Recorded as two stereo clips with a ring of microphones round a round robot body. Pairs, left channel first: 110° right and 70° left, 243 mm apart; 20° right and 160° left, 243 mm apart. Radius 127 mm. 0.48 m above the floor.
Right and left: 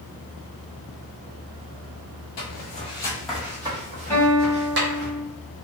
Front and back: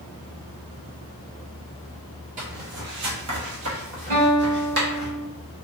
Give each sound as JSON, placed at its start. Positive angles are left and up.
{"t": 2.4, "sound": "footsteps", "azimuth_deg": -145, "distance_m": 0.7}
{"t": 4.1, "sound": "a guitar", "azimuth_deg": 165, "distance_m": 1.2}